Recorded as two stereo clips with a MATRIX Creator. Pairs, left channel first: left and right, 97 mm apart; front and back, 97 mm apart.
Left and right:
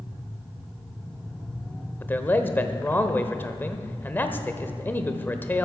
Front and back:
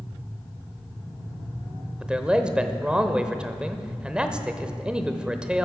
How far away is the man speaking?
About 0.9 m.